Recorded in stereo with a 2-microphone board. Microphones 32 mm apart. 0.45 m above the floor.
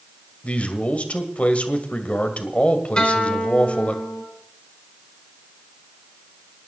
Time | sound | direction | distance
0.4 | a man speaking | 45° left (ahead or behind) | 2 m
3.0 | a guitar | 30° left (ahead or behind) | 3 m